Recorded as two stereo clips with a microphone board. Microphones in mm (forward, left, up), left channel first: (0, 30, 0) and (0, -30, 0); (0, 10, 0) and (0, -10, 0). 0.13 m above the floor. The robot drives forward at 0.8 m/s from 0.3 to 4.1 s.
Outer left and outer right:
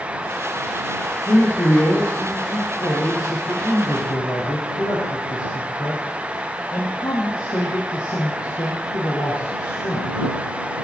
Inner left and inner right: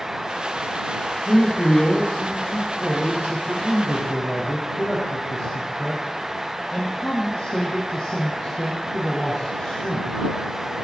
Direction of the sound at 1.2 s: 60° left (ahead or behind).